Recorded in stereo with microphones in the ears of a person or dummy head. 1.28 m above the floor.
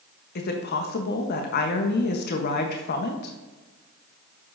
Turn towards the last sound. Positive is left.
turn(degrees=50)  # may be behind; listen again after turning